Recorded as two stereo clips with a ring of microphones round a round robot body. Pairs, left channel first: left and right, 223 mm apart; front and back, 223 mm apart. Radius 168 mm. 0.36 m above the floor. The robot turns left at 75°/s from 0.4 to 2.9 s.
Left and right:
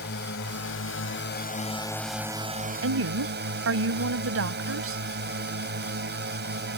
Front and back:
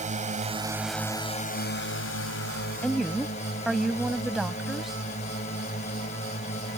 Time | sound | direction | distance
0.0 | a drone | 130° left | ?
2.8 | a woman speaking | 85° right | ?